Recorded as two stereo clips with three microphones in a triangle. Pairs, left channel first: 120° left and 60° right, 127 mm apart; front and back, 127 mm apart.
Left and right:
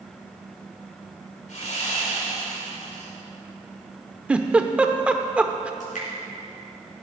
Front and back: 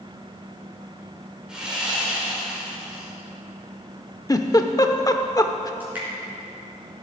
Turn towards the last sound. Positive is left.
turn(degrees=105)